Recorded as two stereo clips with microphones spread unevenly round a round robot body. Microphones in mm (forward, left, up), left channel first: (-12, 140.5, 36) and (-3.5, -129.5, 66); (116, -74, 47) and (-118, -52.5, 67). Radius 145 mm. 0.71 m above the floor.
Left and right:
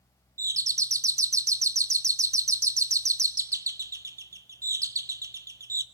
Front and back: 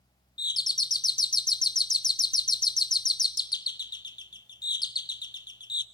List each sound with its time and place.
0.4 s a doorbell: 10° right, 0.8 m